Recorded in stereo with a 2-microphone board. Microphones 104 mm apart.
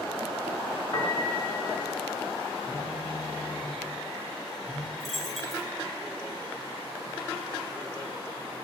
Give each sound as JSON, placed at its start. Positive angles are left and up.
{"t": 0.9, "sound": "a piano", "side_deg": 40, "distance_m": 2.0}
{"t": 2.6, "sound": "a phone buzzing", "side_deg": 65, "distance_m": 2.5}
{"t": 5.0, "sound": "a dropped coin", "side_deg": 0, "distance_m": 3.5}